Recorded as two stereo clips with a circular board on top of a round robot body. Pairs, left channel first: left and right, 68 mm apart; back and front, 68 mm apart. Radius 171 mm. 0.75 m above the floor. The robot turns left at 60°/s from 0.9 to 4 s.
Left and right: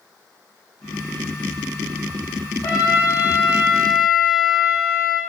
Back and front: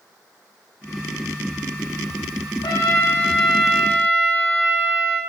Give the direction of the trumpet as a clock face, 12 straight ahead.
7 o'clock.